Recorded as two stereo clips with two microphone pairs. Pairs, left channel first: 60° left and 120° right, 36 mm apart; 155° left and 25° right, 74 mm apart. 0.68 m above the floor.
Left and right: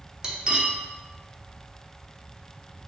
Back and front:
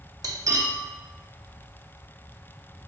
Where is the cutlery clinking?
55° right, 0.6 m.